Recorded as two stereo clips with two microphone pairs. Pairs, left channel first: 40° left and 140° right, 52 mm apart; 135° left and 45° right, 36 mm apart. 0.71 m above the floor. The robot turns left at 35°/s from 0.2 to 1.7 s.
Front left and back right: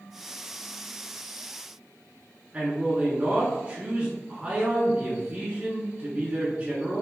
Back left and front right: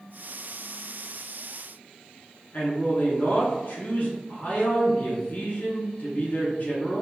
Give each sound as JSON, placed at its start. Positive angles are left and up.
{"t": 2.5, "sound": "a man speaking", "azimuth_deg": 165, "distance_m": 1.6}